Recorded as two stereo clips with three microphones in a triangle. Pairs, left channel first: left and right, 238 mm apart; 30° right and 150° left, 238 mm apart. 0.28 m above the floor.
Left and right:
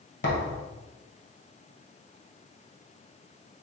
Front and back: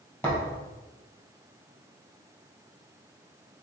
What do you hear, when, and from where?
0.2 s a thud: 50° left, 2 m